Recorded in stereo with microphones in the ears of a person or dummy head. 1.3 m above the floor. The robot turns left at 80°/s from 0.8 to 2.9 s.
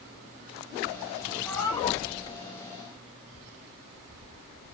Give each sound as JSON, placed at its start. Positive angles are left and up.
{"t": 1.4, "sound": "a cat meowing", "azimuth_deg": 180, "distance_m": 0.9}